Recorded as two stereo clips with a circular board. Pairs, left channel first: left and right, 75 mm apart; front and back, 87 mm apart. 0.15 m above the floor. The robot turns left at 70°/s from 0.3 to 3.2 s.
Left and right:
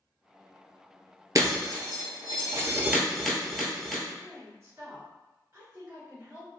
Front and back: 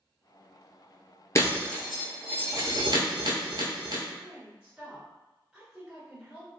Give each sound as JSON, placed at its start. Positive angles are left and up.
{"t": 1.4, "sound": "breaking glass", "azimuth_deg": -50, "distance_m": 0.8}
{"t": 4.2, "sound": "a woman speaking", "azimuth_deg": -110, "distance_m": 1.7}